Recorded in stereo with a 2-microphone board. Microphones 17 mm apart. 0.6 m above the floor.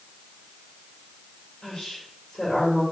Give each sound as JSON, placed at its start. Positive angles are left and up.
{"t": 1.6, "sound": "a woman speaking", "side_deg": 60, "distance_m": 2.0}